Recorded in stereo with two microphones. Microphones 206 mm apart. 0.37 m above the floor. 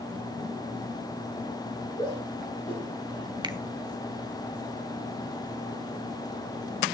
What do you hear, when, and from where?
2.0 s a shout: 30° left (ahead or behind), 8.5 m; by 3.3 s 45° left (ahead or behind), 7.5 m
3.4 s a finger snap: 20° right (ahead or behind), 0.9 m